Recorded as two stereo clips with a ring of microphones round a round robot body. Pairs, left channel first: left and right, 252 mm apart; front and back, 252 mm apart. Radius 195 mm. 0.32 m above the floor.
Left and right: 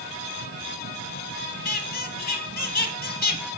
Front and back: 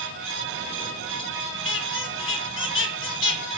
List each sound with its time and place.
1.6 s a squeak: 35° left, 3.5 m